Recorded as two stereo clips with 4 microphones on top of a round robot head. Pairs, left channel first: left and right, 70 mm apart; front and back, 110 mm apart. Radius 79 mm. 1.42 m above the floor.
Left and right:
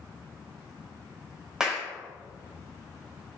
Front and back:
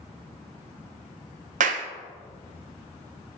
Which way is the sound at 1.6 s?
175° right.